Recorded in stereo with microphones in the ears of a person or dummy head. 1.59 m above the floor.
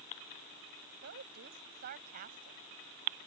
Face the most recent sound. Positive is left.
turn(degrees=-40)  # may be behind; listen again after turning